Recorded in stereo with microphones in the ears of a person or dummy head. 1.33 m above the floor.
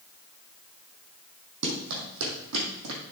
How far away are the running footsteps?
About 3.5 m.